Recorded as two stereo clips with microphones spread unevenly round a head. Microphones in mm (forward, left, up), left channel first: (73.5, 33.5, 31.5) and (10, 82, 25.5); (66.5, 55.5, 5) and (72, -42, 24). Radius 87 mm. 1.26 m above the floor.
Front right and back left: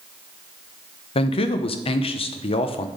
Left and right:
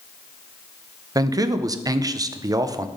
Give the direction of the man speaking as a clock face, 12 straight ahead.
1 o'clock.